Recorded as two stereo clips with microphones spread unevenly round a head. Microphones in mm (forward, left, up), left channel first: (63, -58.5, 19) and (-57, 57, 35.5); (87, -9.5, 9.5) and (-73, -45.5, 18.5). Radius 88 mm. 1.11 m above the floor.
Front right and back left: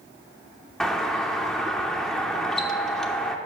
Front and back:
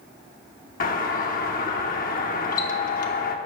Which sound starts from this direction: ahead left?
A doorbell, at 0.8 s.